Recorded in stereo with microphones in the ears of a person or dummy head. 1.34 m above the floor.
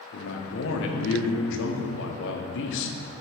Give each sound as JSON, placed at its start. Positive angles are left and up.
{"t": 0.1, "sound": "a man speaking", "side_deg": 65, "distance_m": 1.0}